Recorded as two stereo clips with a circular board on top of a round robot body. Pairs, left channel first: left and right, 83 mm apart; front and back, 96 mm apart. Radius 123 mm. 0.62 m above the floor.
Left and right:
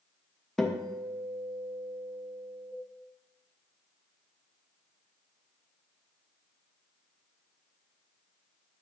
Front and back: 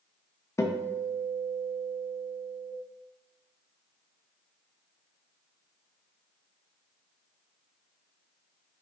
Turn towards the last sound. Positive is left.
turn(degrees=10)